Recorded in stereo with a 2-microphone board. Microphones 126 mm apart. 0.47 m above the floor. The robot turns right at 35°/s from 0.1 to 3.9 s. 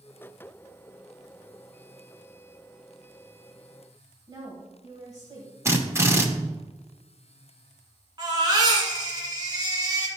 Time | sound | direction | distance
4.3 | a woman speaking | 30° right (ahead or behind) | 3 m
5.7 | a drill | 20° right (ahead or behind) | 1.1 m
8.2 | a baby crying | 35° right (ahead or behind) | 2 m